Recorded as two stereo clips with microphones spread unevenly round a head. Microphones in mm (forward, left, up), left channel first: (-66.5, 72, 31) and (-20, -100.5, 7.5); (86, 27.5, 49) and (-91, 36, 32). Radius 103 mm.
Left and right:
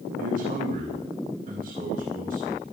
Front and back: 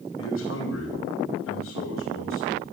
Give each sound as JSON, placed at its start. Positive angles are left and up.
{"t": 0.2, "sound": "a man speaking", "azimuth_deg": -10, "distance_m": 3.5}